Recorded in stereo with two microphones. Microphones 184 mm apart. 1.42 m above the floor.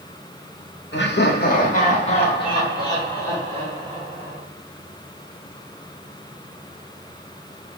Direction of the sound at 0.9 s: 75° left (ahead or behind).